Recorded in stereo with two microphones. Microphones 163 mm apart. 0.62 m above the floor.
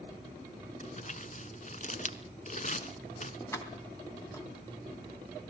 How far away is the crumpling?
About 1.0 m.